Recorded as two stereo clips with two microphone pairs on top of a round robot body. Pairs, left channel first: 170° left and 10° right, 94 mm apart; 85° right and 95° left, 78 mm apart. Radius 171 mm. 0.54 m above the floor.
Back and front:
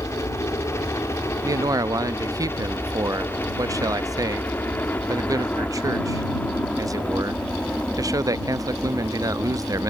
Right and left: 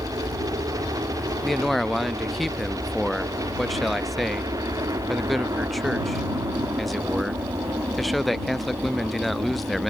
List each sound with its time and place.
0.0 s a helicopter: 115° left; by 9.9 s 90° left
1.4 s a man speaking: straight ahead